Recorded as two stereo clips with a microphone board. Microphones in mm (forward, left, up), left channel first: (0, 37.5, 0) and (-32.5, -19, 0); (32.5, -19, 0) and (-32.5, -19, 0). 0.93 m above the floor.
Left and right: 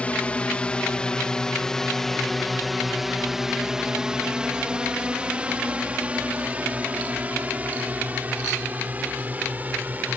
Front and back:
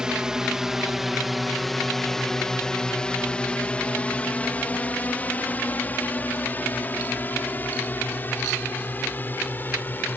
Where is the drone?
110° left; by 10.2 s 60° right.